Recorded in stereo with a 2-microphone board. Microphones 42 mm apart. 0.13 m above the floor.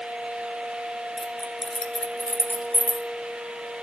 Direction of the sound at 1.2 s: 15° right (ahead or behind).